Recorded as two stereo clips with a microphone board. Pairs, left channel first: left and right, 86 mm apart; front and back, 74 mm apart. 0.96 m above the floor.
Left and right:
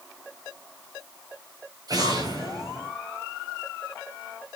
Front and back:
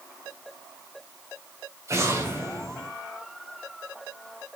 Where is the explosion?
130° right, 3 m.